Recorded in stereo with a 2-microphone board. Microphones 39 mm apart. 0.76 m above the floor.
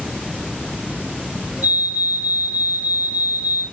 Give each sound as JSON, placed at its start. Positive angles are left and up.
{"t": 1.6, "sound": "a fire alarm", "side_deg": -60, "distance_m": 4.0}